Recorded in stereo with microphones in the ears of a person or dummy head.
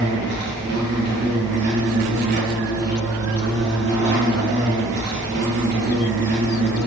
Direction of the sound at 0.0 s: 50° right (ahead or behind).